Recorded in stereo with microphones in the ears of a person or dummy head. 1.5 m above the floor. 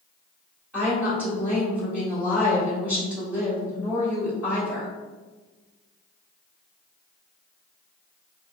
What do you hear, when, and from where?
0.7 s a woman speaking: 10° right (ahead or behind), 1.6 m